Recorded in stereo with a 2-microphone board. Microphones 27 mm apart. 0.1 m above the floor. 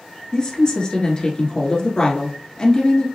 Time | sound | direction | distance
0.3 | a woman speaking | 35° left (ahead or behind) | 1.2 m